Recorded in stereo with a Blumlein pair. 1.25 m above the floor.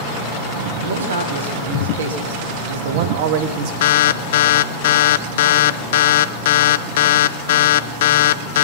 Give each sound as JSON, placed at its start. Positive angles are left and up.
{"t": 0.8, "sound": "a man speaking", "azimuth_deg": -70, "distance_m": 2.5}
{"t": 3.8, "sound": "an alarm", "azimuth_deg": 55, "distance_m": 0.5}